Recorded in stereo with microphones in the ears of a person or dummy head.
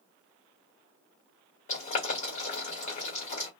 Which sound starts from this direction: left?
Boiling, at 1.7 s.